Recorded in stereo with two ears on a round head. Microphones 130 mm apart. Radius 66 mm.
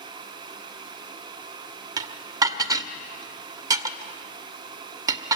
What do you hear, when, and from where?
2.0 s dishes clattering: 25° right (ahead or behind), 1.0 m